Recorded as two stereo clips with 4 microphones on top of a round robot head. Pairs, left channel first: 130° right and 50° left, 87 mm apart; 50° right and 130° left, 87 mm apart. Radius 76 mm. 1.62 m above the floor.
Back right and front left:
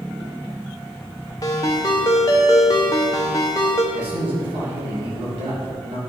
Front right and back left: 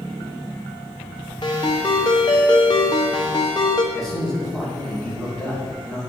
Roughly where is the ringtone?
Right.